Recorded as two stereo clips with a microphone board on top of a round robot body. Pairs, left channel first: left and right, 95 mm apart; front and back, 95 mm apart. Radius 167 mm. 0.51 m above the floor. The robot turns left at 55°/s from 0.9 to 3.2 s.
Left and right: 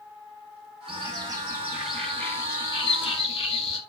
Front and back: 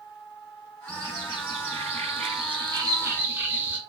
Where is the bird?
125° right, 2 m; by 3.8 s 110° left, 2 m.